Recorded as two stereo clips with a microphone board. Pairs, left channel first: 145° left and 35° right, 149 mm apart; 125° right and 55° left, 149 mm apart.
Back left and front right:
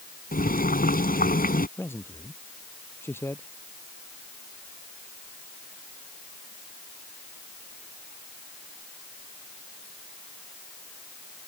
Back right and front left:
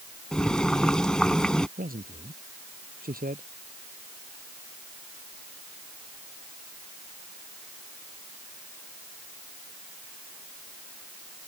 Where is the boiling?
150° left.